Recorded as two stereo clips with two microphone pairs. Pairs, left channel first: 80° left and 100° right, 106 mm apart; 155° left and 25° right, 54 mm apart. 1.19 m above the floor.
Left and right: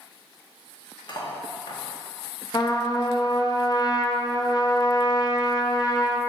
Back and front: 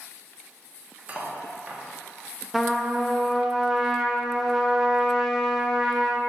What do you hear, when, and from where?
1.1 s cutlery clinking: 35° left, 1.1 m
2.5 s a trumpet: 55° left, 0.7 m